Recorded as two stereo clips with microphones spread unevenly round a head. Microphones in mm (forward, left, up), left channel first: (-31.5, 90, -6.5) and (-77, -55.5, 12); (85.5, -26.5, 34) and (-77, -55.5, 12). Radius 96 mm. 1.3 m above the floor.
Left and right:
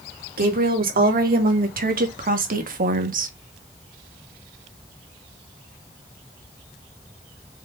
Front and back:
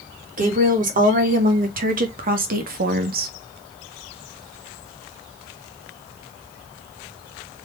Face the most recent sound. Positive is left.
turn(degrees=-135)